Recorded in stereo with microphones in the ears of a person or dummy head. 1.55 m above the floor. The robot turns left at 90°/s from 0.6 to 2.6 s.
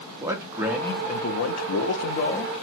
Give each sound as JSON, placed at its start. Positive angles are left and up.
{"t": 0.2, "sound": "a man speaking", "azimuth_deg": -165, "distance_m": 0.5}